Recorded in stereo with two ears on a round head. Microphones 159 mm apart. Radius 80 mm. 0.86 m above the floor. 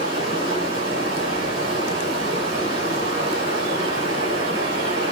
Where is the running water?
75° right (ahead or behind), 3 m.